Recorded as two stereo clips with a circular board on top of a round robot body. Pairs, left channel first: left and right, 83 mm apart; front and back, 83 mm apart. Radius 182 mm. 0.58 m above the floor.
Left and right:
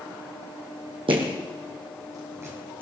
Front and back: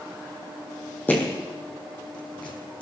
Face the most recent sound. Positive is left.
turn(degrees=-25)